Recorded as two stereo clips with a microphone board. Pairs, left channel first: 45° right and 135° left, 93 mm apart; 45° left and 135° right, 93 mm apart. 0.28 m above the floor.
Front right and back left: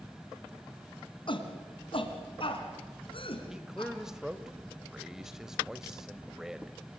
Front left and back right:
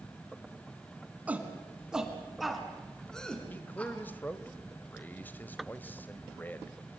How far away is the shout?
About 2.5 m.